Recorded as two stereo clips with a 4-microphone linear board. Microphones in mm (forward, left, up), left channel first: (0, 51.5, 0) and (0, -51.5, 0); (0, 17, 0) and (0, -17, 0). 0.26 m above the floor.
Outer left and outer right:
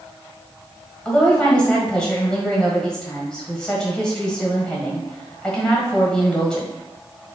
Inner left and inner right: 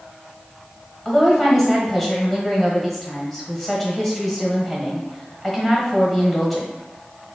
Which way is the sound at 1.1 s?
10° left (ahead or behind).